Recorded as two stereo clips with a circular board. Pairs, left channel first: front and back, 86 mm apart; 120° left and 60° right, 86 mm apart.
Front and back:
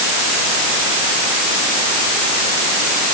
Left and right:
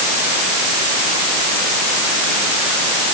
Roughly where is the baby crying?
I don't hear a baby crying.